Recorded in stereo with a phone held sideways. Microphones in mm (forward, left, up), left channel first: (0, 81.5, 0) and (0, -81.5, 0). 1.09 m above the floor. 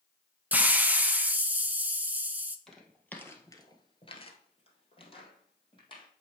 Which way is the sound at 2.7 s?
5° left (ahead or behind).